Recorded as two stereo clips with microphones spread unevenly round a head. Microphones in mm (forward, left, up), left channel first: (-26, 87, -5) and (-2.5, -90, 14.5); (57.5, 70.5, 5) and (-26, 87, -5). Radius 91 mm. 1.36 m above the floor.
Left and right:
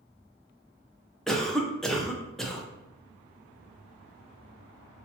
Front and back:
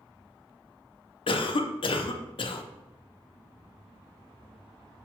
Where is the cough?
10° left, 0.5 m.